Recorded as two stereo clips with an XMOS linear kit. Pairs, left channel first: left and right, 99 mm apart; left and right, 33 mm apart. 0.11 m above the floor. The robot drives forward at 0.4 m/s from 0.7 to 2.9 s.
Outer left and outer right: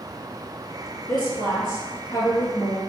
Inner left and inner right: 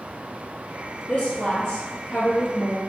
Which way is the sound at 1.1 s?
50° left (ahead or behind).